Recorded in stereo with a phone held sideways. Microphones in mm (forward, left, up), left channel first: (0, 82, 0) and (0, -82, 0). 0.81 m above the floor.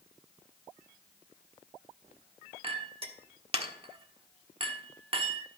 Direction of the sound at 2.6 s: 35° right (ahead or behind).